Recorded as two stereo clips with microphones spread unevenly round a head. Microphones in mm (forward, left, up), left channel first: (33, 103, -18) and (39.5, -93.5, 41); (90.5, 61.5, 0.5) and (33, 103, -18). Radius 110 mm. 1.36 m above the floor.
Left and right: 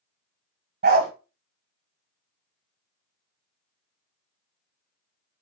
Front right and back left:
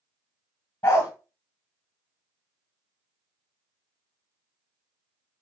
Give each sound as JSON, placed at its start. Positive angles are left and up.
{"t": 0.8, "sound": "a dog barking", "azimuth_deg": -85, "distance_m": 2.0}